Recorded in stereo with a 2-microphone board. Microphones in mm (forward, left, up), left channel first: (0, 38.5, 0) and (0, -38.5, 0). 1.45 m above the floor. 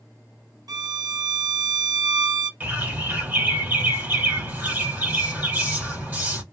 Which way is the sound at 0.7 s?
55° right (ahead or behind).